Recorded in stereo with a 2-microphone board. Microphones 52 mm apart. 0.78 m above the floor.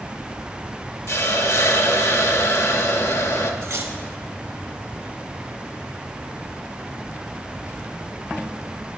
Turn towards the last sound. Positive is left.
turn(degrees=-60)  # may be behind; listen again after turning